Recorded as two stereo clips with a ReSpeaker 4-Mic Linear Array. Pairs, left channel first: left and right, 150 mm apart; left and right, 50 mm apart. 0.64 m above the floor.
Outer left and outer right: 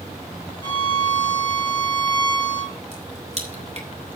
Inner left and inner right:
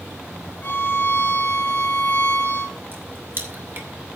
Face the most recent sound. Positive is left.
turn(degrees=-50)  # may be behind; listen again after turning